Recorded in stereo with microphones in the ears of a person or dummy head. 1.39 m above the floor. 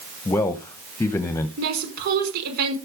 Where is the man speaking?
10° left (ahead or behind), 1.0 m.